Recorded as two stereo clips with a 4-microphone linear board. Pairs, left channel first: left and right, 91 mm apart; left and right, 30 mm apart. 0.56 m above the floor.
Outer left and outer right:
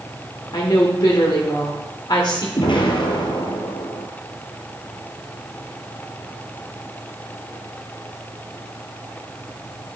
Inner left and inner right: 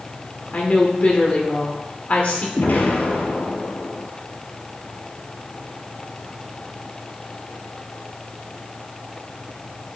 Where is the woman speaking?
55° left (ahead or behind), 1.6 m.